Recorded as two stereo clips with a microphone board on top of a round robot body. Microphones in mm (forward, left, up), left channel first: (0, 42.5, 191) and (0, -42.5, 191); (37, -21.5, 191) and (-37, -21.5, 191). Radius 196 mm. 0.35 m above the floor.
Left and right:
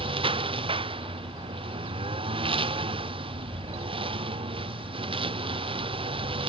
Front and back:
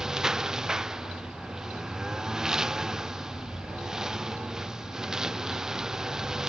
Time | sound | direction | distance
0.0 | a lawn mower | 100° right | ?